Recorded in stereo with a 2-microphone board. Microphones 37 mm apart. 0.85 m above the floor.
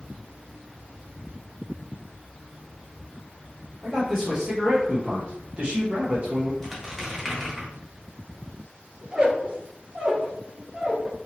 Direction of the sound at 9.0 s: 25° right (ahead or behind).